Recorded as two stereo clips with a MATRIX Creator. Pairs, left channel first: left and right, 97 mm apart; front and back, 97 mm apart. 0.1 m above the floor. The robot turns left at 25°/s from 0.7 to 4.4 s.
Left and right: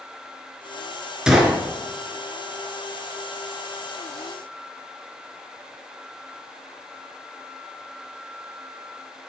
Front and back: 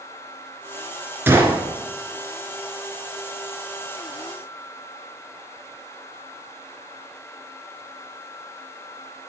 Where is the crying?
I don't hear crying.